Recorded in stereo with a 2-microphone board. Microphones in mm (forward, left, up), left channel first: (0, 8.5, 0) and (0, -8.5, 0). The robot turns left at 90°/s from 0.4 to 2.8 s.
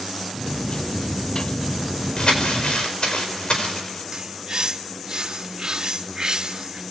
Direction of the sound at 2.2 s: 135° left.